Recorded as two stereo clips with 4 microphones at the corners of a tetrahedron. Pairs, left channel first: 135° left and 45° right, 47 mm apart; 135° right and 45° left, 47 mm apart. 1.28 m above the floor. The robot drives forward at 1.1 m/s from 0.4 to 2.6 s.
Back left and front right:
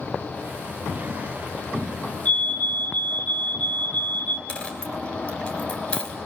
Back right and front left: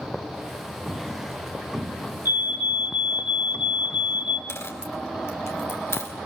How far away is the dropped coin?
About 4.5 m.